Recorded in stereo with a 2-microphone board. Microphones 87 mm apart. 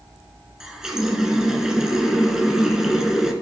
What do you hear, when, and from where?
0.6 s a running tap: 5° right (ahead or behind), 1.1 m